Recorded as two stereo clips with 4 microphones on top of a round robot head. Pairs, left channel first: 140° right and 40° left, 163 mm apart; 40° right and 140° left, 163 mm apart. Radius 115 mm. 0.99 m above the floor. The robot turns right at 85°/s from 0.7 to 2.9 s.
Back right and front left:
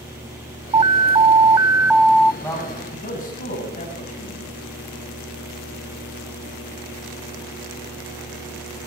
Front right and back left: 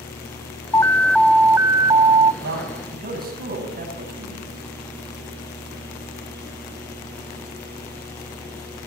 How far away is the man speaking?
About 8.5 m.